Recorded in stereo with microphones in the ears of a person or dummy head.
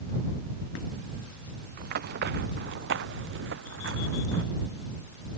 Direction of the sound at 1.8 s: 55° right (ahead or behind).